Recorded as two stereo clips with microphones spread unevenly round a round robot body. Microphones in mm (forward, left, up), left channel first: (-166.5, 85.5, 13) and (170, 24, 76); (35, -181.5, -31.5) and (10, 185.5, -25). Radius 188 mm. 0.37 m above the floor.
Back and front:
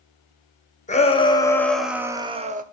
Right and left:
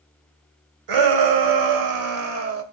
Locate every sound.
0.9 s a shout: 110° left, 1.6 m; by 2.6 s 60° left, 1.2 m